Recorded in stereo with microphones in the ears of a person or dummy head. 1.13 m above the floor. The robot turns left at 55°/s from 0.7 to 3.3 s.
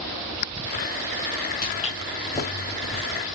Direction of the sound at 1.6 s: 40° left (ahead or behind).